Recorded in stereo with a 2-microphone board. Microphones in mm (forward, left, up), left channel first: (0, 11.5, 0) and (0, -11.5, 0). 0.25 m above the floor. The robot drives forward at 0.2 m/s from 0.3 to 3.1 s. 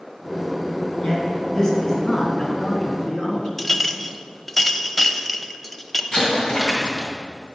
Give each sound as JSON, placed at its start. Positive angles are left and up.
{"t": 1.0, "sound": "a man speaking", "side_deg": 25, "distance_m": 2.5}
{"t": 3.6, "sound": "a clink", "side_deg": 10, "distance_m": 0.5}
{"t": 6.1, "sound": "an explosion", "side_deg": 40, "distance_m": 2.0}